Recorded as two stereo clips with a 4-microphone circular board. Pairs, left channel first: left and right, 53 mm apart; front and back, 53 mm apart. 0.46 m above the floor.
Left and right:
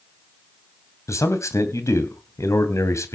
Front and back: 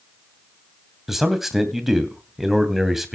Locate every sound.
1.1 s a man speaking: 95° left, 2.5 m